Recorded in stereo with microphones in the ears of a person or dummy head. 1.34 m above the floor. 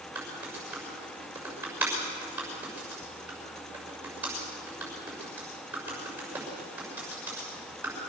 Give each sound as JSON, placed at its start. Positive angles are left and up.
{"t": 0.1, "sound": "typing on a keyboard", "side_deg": -15, "distance_m": 6.0}